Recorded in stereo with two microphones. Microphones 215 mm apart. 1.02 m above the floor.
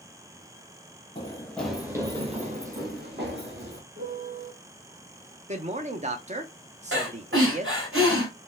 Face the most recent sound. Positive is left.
turn(degrees=-70)  # may be behind; listen again after turning